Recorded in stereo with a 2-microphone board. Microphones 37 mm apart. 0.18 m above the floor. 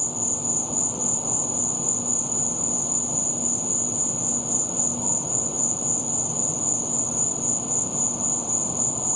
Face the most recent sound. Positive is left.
turn(degrees=-5)  # may be behind; listen again after turning